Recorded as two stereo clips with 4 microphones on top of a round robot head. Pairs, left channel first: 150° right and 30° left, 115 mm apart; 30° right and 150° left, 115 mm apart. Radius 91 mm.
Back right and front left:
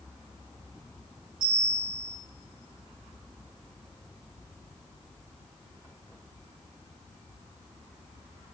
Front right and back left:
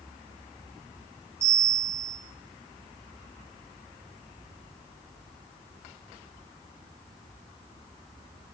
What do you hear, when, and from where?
1.4 s a bell: 80° left, 4 m